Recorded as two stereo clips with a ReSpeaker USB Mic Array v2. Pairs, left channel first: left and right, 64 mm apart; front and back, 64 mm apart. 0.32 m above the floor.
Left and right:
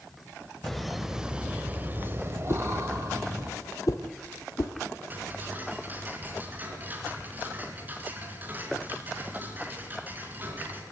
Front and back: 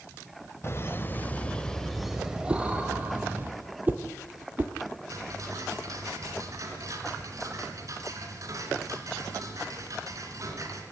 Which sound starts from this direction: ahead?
Laughter, at 0.6 s.